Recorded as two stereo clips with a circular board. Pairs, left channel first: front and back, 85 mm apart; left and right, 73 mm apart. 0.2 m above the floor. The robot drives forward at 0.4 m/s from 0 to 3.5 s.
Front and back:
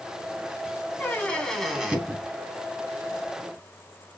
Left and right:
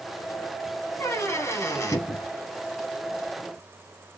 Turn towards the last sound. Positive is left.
turn(degrees=150)